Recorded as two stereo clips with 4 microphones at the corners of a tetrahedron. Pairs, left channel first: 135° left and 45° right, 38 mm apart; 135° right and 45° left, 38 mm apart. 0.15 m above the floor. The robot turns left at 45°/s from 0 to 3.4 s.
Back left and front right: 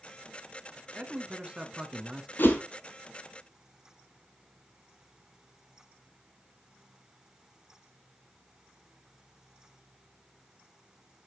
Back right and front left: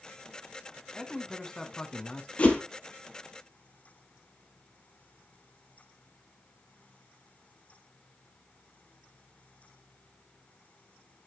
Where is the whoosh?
170° left, 1.5 m; by 2.6 s 160° left, 1.5 m.